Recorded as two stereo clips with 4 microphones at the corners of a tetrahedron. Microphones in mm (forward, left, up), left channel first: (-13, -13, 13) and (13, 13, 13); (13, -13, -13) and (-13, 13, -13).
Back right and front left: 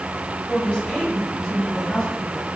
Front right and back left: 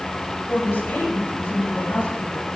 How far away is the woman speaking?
About 7.5 m.